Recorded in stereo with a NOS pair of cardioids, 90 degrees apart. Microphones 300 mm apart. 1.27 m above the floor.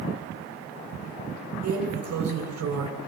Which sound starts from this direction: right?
A drawer, at 1.6 s.